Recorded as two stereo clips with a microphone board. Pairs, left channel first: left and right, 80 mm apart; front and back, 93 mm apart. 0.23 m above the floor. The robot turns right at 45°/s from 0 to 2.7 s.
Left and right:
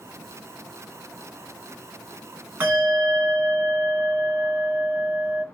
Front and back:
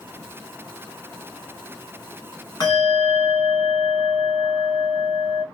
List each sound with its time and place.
2.6 s a bell: 30° right, 1.6 m; by 5.5 s 25° right, 1.6 m